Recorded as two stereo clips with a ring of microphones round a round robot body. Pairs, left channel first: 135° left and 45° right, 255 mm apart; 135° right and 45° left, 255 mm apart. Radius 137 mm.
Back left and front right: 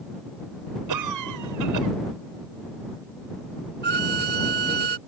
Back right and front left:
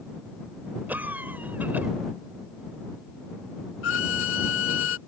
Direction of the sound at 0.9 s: 40° right.